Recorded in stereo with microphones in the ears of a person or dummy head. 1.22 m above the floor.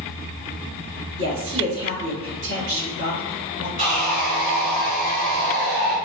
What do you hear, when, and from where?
1.2 s a woman speaking: 75° right (ahead or behind), 1.4 m
3.8 s sawing: 50° right (ahead or behind), 1.2 m